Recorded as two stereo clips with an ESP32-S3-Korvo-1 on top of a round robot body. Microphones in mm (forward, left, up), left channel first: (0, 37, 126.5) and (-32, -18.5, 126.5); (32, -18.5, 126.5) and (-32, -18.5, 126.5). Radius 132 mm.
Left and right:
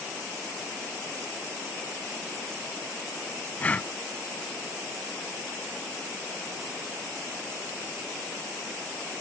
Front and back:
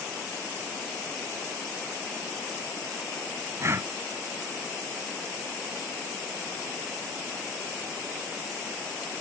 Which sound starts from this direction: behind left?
Breathing, at 3.6 s.